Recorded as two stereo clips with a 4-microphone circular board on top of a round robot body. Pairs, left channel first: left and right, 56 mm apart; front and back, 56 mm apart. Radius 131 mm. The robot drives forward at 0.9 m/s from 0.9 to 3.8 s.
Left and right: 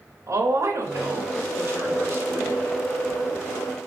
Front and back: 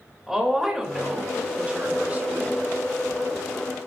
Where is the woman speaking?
95° right, 2.5 m; by 2.6 s 125° right, 3 m.